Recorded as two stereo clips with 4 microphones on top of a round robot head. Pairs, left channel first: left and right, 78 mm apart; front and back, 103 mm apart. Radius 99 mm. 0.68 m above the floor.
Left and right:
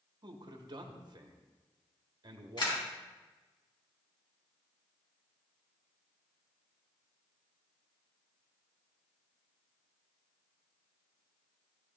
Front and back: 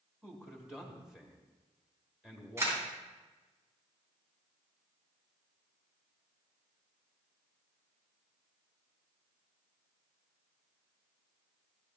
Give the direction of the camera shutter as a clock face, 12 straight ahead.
8 o'clock.